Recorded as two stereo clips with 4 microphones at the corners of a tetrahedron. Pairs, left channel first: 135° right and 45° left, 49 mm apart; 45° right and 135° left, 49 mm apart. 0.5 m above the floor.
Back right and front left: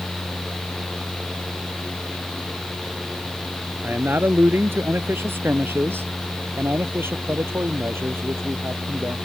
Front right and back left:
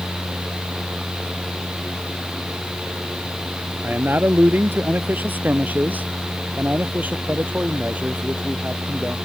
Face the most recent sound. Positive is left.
turn(degrees=75)